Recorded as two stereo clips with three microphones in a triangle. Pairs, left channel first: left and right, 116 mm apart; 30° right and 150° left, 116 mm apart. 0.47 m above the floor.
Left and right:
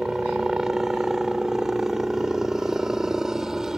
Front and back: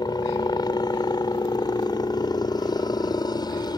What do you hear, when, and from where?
0.0 s a helicopter: 5° right